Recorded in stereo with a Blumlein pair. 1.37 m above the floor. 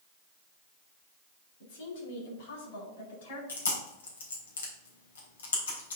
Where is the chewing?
65° left, 3 m.